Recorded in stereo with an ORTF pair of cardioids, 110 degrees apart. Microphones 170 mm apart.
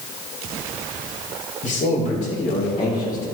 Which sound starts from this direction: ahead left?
A man speaking, at 1.6 s.